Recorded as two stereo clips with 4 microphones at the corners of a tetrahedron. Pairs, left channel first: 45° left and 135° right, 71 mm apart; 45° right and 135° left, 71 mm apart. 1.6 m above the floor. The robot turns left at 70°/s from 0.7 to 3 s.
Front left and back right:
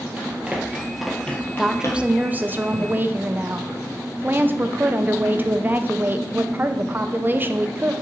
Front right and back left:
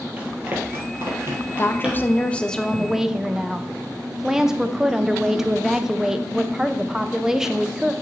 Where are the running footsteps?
Straight behind, 1.8 m; by 2.2 s 35° left, 2 m.